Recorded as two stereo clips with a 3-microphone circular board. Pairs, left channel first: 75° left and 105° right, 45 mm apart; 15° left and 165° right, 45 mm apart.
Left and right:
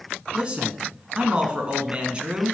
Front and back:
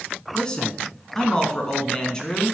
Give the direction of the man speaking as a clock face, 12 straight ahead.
2 o'clock.